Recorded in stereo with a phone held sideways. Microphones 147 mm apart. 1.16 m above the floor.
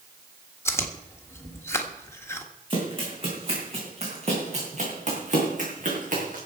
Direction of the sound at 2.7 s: 35° right (ahead or behind).